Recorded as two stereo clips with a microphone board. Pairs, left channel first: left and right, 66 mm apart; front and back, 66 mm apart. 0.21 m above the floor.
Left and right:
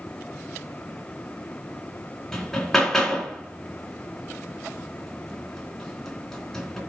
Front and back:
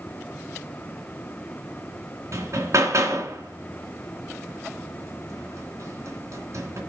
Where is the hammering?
175° left, 2.5 m.